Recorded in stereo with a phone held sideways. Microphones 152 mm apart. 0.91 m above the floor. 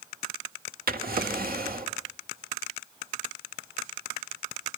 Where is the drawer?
80° right, 1.7 m.